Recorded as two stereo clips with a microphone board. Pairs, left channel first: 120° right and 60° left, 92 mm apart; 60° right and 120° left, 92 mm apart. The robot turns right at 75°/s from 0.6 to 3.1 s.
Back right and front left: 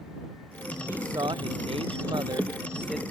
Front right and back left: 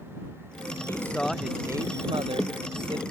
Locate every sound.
0.9 s a man speaking: 5° right; by 3.0 s 155° left